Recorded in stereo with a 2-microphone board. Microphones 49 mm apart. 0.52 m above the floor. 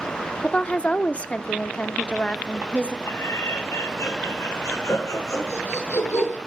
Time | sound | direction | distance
0.4 | a woman speaking | 25° left (ahead or behind) | 0.8 m
3.1 | laughter | 80° left | 7.5 m